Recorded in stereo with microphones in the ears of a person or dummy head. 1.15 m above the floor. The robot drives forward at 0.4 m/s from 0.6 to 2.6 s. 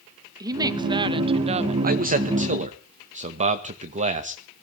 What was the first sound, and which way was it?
A woman speaking, 25° right (ahead or behind).